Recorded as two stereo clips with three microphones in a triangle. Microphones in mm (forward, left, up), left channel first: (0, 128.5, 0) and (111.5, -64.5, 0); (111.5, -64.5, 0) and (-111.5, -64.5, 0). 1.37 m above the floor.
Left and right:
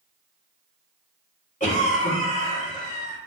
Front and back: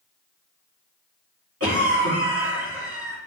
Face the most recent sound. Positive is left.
turn(degrees=175)